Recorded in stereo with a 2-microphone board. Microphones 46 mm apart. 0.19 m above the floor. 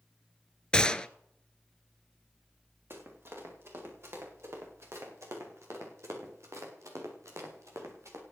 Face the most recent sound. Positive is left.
turn(degrees=-80)